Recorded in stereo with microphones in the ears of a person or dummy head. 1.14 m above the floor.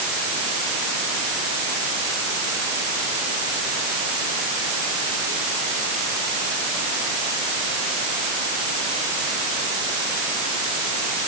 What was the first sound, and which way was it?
Only background noise.